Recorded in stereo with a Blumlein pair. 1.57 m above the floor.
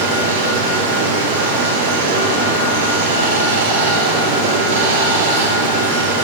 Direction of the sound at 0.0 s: 55° right.